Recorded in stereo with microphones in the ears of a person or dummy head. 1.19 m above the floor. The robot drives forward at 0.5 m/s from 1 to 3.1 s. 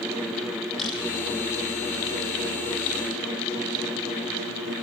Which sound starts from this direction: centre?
A camera shutter, at 0.8 s.